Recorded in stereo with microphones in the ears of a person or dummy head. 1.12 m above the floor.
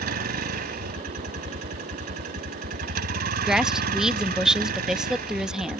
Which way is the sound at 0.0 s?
50° right (ahead or behind).